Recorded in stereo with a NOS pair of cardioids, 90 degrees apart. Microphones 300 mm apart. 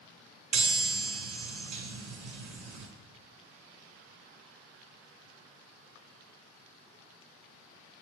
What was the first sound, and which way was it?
A chime, 70° right.